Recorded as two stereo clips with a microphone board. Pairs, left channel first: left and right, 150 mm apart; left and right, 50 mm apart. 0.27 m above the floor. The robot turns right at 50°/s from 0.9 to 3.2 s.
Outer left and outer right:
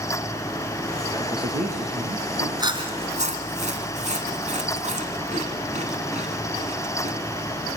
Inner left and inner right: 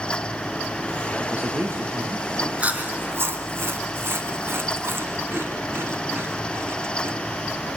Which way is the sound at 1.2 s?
150° right.